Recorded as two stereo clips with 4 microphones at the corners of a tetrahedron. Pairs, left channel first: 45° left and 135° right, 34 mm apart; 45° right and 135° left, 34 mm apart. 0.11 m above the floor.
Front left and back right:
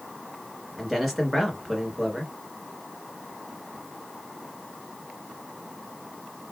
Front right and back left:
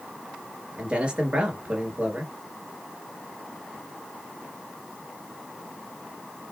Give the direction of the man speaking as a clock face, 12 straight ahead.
7 o'clock.